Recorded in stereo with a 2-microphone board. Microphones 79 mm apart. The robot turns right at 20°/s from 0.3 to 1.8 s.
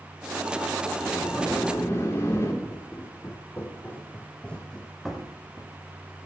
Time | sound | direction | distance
1.0 | a sliding door | 50° left (ahead or behind) | 4 m
2.6 | footsteps | 35° left (ahead or behind) | 5 m